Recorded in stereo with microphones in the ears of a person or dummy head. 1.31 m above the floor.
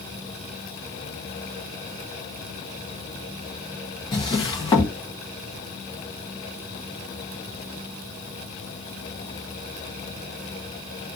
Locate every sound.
4.1 s a drawer: 25° left (ahead or behind), 0.6 m